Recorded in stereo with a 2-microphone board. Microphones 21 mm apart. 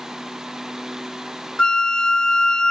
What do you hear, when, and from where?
1.6 s a flute: 45° left (ahead or behind), 0.6 m